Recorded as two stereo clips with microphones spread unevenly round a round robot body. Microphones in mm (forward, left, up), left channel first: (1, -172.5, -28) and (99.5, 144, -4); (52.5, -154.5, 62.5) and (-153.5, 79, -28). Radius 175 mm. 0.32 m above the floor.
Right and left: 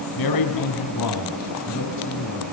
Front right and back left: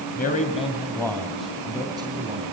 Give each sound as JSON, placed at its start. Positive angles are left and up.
{"t": 0.2, "sound": "a man speaking", "azimuth_deg": -115, "distance_m": 2.5}